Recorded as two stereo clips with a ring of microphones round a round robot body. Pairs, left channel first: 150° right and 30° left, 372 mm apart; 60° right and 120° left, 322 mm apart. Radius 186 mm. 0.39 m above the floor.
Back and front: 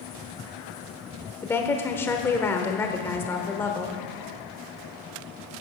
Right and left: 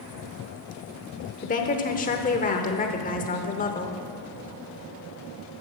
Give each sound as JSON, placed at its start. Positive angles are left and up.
{"t": 1.4, "sound": "a woman speaking", "azimuth_deg": -75, "distance_m": 0.9}